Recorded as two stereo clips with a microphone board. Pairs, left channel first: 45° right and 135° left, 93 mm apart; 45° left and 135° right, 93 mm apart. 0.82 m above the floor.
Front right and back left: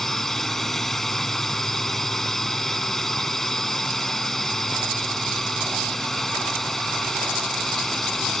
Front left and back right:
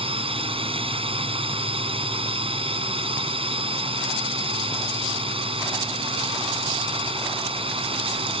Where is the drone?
135° right.